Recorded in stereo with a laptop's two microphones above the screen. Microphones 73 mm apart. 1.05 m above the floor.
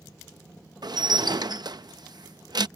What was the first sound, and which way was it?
Dishes clattering, 65° right (ahead or behind).